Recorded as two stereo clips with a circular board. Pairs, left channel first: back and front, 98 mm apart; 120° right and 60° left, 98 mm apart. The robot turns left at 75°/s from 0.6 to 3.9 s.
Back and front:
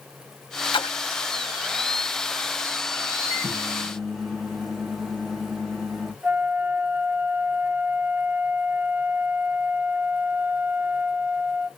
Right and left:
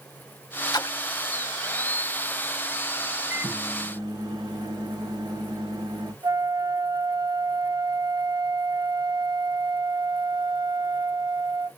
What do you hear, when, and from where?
0.7 s a splash: 160° right, 0.6 m; by 1.2 s 165° left, 0.6 m
3.3 s a microwave: 135° left, 1.8 m; by 6.1 s 90° left, 1.8 m
6.2 s a flute: 60° left, 0.7 m